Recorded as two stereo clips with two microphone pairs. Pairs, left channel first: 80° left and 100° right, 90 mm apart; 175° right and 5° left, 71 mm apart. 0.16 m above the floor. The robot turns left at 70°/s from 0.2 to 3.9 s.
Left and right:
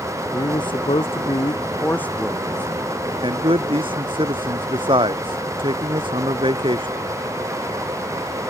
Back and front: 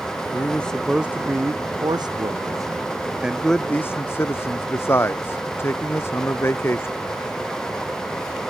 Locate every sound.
0.3 s a man speaking: 130° left; by 7.0 s 120° right